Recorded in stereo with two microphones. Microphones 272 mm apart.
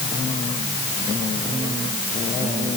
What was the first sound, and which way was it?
Only background noise.